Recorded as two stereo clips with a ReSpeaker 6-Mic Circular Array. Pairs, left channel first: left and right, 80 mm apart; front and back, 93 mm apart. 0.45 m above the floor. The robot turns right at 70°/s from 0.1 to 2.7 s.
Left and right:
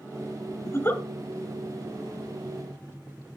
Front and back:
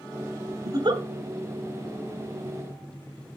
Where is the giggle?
135° left, 1.2 m; by 1.0 s 160° left, 1.2 m.